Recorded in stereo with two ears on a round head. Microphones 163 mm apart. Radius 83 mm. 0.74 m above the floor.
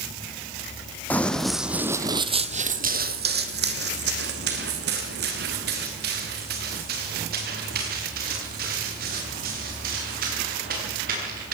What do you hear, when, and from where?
1.1 s running footsteps: 10° left (ahead or behind), 1.5 m; by 11.5 s 50° right (ahead or behind), 8 m